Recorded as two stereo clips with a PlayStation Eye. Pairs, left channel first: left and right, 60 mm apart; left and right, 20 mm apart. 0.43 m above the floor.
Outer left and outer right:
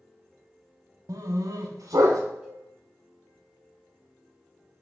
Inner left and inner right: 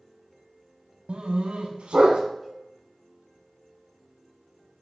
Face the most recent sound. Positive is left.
turn(degrees=-20)  # may be behind; listen again after turning